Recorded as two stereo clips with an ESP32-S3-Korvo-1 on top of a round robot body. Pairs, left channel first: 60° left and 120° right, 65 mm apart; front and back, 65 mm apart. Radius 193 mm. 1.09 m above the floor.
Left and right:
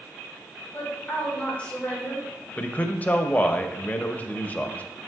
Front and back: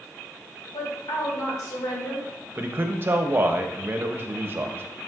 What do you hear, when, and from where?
0.7 s a woman speaking: 10° right, 2.5 m
2.6 s a man speaking: 125° left, 0.5 m